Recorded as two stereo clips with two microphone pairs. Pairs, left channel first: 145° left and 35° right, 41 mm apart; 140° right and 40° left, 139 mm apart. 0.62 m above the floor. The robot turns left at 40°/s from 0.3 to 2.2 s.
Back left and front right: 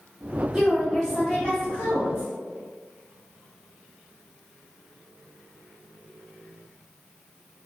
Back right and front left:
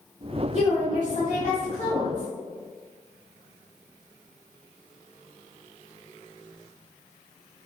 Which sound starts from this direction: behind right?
A woman speaking, at 0.5 s.